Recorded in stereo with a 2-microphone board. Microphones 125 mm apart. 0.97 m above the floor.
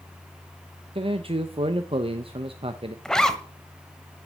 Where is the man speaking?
45° right (ahead or behind), 0.7 m.